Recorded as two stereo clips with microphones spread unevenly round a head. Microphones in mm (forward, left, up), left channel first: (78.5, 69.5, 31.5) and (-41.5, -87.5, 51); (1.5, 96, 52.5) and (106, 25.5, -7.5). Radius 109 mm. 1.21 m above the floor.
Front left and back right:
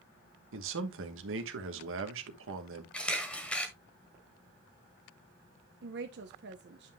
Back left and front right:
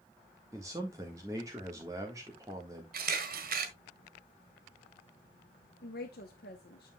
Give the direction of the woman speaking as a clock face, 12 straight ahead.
6 o'clock.